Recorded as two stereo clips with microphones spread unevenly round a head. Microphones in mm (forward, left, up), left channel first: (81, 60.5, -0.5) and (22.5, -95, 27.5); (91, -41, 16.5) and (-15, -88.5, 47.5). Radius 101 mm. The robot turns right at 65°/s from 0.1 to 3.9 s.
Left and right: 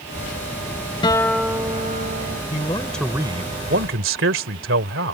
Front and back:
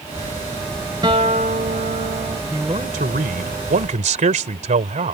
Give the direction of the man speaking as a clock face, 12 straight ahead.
8 o'clock.